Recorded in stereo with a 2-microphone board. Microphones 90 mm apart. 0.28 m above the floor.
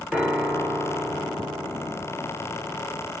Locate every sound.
0.1 s a piano: 10° right (ahead or behind), 1.5 m